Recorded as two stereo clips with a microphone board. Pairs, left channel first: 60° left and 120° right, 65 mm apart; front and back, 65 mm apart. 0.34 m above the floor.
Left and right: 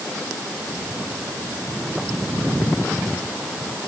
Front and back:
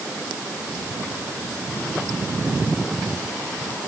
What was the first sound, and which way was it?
Only background noise.